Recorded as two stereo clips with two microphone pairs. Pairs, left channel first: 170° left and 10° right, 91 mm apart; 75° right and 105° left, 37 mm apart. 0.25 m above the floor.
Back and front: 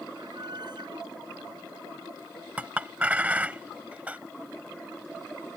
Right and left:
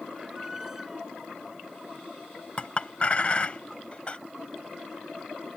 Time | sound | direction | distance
0.1 | a squeak | 25° left | ?
2.6 | a clink | 70° right | ?